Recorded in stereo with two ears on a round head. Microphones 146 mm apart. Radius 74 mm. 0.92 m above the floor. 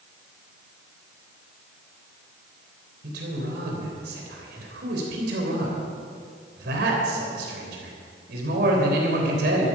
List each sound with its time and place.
3.0 s a man speaking: 70° right (ahead or behind), 3.5 m